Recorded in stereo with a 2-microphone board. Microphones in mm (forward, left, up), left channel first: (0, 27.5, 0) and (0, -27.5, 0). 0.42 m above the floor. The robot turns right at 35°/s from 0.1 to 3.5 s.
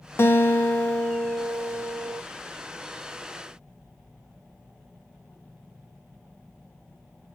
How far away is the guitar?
About 0.7 m.